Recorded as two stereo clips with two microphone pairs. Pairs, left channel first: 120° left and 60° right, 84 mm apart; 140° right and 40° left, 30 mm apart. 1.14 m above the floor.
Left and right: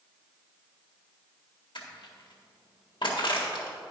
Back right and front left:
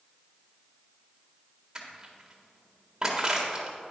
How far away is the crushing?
About 1.7 m.